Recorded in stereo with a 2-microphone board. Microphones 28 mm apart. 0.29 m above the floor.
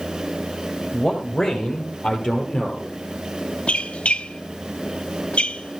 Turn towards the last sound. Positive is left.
turn(degrees=50)  # may be behind; listen again after turning